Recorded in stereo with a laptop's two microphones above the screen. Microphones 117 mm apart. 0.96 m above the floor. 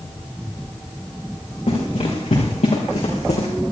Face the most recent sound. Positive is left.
turn(degrees=75)  # may be behind; listen again after turning